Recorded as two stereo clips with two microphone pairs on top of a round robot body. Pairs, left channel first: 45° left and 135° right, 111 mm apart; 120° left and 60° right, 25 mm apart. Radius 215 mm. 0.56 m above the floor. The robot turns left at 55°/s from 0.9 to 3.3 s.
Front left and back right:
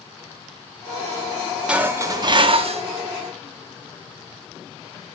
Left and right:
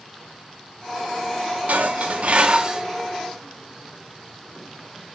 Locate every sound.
1.7 s dishes clattering: 60° right, 0.9 m; by 2.8 s 120° right, 0.9 m